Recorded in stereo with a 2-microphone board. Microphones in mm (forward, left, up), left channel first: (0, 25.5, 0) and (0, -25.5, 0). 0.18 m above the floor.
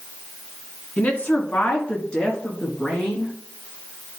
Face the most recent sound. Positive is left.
turn(degrees=10)  # may be behind; listen again after turning